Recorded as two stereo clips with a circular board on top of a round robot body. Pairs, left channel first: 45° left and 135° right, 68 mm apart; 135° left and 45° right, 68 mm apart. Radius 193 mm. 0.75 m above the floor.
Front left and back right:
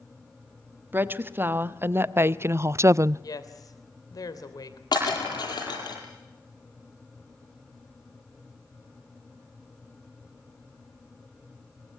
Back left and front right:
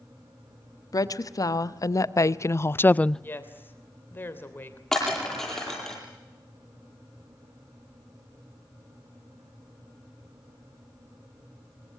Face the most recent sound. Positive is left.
turn(degrees=50)